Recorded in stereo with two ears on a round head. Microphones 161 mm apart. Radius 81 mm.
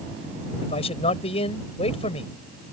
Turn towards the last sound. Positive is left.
turn(degrees=35)  # may be behind; listen again after turning